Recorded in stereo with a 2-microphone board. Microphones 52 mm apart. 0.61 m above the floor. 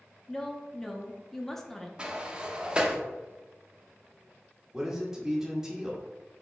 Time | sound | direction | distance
0.3 | a woman speaking | 5° left (ahead or behind) | 0.6 m
2.0 | a sliding door | 20° right (ahead or behind) | 0.7 m
4.7 | a man speaking | 10° right (ahead or behind) | 1.2 m